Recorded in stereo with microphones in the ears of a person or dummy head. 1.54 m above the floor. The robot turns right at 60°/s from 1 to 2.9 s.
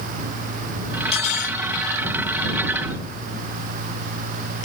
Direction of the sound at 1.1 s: 30° left (ahead or behind).